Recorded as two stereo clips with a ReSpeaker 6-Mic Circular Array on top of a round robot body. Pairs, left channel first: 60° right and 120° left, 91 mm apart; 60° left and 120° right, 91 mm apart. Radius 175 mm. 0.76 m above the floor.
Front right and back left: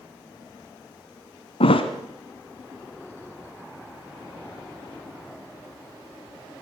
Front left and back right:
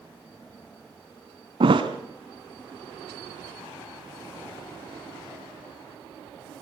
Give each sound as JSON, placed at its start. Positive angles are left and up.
{"t": 1.6, "sound": "a thud", "azimuth_deg": -85, "distance_m": 1.3}